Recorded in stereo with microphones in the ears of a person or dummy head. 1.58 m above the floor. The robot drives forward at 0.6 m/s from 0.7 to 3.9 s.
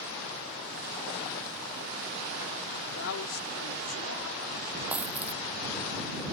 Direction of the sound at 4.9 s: 10° right (ahead or behind).